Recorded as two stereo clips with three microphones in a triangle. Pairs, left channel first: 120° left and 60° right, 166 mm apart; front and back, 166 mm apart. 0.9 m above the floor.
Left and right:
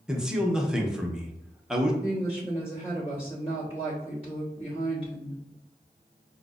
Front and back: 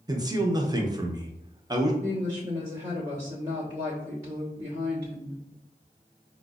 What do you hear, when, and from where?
0.1 s a man speaking: 140° right, 0.6 m
2.0 s a woman speaking: 130° left, 1.0 m